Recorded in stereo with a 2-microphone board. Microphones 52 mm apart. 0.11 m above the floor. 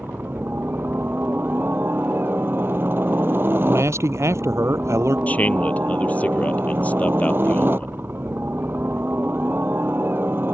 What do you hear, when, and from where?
0.0 s a helicopter: 40° right (ahead or behind)
3.6 s a man speaking: 60° right (ahead or behind)
5.3 s a man speaking: 30° left (ahead or behind)